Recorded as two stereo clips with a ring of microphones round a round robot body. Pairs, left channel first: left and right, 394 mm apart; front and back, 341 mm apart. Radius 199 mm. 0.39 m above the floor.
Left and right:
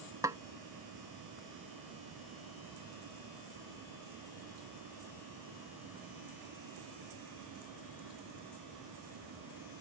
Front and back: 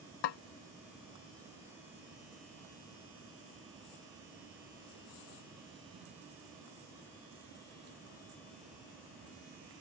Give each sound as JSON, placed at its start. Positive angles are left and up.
{"t": 0.2, "sound": "a snare drum", "azimuth_deg": -5}